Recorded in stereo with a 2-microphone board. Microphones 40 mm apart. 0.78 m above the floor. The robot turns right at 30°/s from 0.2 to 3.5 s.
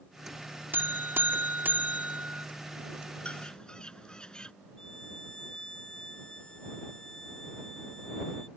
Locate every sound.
0.7 s a buzzer: 95° right; by 2.5 s 45° right
3.2 s a bird: 30° left (ahead or behind); by 4.5 s 25° left (ahead or behind)
4.8 s a violin: 20° left (ahead or behind)